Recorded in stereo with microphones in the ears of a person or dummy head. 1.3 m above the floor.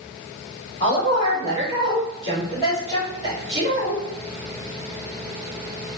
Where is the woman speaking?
25° left (ahead or behind), 1.8 m.